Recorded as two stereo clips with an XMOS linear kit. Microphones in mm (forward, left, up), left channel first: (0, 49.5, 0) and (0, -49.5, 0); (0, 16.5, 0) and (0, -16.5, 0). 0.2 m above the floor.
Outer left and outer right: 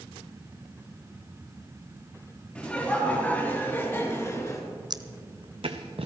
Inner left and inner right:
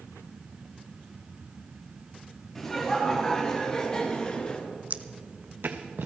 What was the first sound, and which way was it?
Laughter, 10° left (ahead or behind).